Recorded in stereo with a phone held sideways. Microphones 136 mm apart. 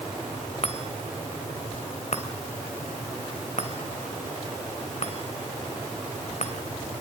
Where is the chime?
55° left (ahead or behind), 3 m.